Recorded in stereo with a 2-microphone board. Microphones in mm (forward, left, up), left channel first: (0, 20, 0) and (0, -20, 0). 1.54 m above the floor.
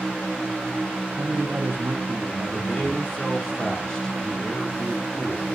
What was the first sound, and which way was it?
A man speaking, 85° right.